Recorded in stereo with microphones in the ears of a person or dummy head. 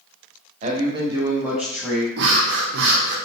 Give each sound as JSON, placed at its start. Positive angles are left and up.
{"t": 0.6, "sound": "a man speaking", "side_deg": -40, "distance_m": 0.8}
{"t": 2.2, "sound": "breathing", "side_deg": -60, "distance_m": 0.7}